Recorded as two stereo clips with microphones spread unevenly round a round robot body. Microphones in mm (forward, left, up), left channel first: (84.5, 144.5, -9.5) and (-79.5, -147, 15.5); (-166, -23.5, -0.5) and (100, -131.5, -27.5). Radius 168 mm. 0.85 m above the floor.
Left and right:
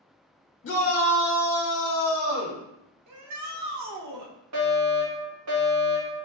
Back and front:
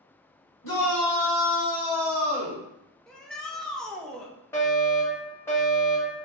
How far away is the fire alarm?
About 1.6 m.